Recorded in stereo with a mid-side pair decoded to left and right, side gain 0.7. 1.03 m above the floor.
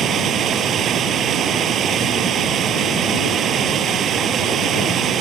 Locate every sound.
0.0 s running water: 45° right